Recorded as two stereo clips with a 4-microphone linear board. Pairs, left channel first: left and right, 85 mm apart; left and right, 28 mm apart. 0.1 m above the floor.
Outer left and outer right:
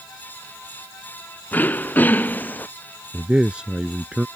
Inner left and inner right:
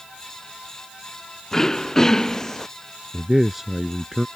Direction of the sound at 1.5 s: 20° left (ahead or behind).